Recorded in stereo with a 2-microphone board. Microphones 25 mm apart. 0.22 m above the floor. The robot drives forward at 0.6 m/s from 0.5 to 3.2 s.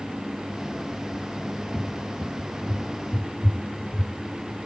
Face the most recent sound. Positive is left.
turn(degrees=60)  # may be behind; listen again after turning